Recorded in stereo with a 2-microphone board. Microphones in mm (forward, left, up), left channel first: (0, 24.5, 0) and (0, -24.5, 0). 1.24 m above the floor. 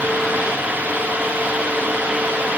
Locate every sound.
Only background noise.